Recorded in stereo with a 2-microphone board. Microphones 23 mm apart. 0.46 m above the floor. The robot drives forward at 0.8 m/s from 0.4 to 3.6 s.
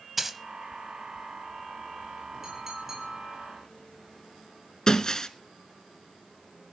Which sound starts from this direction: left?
Breaking glass, at 4.9 s.